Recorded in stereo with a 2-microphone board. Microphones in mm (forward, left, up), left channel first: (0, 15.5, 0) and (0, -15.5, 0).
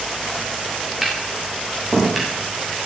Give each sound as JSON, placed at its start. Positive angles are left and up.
{"t": 1.0, "sound": "tapping", "side_deg": -5, "distance_m": 8.0}